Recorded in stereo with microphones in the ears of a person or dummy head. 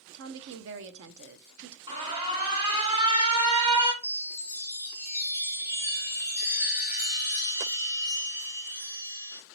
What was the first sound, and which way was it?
A woman speaking, 65° right (ahead or behind).